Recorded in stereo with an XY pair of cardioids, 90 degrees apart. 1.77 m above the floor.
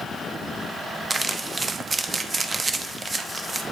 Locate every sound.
1.1 s crumpling: 35° right, 0.8 m